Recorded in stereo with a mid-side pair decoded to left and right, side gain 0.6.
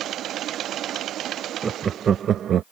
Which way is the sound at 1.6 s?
25° right.